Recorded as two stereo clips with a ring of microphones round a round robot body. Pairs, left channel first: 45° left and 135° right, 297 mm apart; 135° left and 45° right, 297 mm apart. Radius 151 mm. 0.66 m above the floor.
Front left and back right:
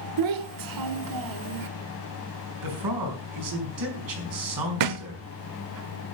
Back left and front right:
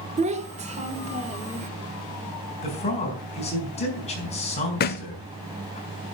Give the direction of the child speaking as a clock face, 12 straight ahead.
4 o'clock.